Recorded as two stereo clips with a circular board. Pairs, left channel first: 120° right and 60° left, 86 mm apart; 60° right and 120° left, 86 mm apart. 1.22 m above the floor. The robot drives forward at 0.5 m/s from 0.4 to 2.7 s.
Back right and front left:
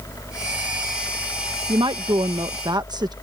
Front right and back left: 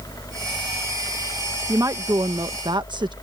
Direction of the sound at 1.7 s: 70° left.